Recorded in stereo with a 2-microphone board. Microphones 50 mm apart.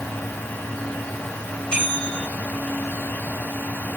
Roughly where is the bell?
Left.